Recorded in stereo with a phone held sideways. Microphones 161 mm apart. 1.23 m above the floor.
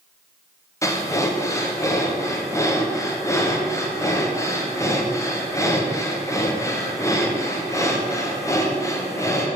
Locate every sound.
0.8 s breathing: 20° left (ahead or behind), 0.6 m